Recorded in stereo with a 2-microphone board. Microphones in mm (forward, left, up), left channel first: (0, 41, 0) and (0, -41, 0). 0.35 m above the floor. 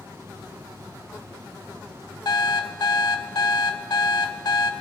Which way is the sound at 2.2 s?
55° left (ahead or behind).